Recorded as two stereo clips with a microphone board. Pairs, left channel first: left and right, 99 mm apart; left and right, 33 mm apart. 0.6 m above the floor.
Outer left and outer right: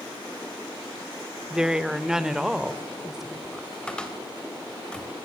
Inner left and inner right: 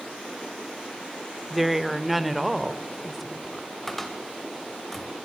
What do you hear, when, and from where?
1.5 s a woman speaking: 5° right (ahead or behind), 1.1 m
3.9 s a cupboard door: 10° left (ahead or behind), 3.5 m